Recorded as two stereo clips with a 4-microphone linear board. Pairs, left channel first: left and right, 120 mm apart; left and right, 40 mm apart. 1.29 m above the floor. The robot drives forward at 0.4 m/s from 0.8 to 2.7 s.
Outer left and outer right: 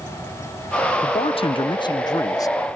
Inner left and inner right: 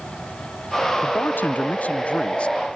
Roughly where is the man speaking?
Left.